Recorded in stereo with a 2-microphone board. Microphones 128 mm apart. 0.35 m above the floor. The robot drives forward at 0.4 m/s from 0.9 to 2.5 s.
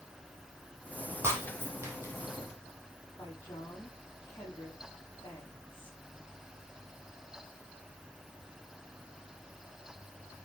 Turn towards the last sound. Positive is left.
turn(degrees=15)  # may be behind; listen again after turning